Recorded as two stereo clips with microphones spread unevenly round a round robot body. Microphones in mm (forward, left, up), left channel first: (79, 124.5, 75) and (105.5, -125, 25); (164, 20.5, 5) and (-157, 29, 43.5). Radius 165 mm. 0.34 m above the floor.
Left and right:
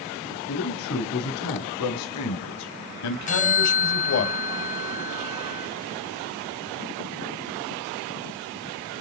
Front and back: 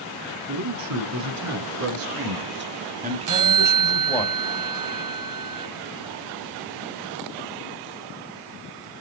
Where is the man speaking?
145° left, 5.5 m; by 4.3 s 75° left, 2.5 m.